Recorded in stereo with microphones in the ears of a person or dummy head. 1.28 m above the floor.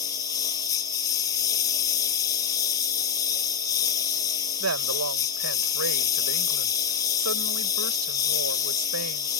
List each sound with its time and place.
0.0 s a lawn mower: 15° left (ahead or behind)
4.6 s a woman speaking: 80° right